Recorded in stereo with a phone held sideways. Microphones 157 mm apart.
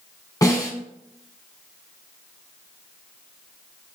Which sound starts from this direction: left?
A snare drum, at 0.4 s.